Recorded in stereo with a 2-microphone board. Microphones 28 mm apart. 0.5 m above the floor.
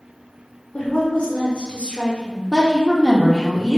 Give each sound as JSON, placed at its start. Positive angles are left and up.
{"t": 0.7, "sound": "a woman speaking", "side_deg": 50, "distance_m": 1.1}
{"t": 2.5, "sound": "a woman speaking", "side_deg": 15, "distance_m": 0.8}